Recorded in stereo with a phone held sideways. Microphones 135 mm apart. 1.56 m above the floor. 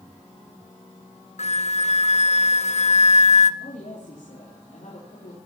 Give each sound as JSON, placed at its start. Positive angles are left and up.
{"t": 1.4, "sound": "a flute", "side_deg": 60, "distance_m": 0.6}
{"t": 3.6, "sound": "a woman speaking", "side_deg": 90, "distance_m": 4.0}